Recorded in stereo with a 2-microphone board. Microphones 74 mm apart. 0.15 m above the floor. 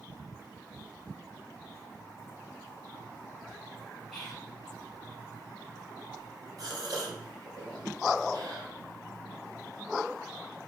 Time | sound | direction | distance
4.1 | whispering | 5° left (ahead or behind) | 1.1 m
6.6 | a gasp | 60° right (ahead or behind) | 2 m